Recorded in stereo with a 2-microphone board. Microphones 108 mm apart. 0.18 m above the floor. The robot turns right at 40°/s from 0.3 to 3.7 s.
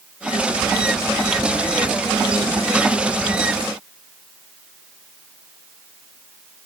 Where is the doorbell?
No doorbell in this recording.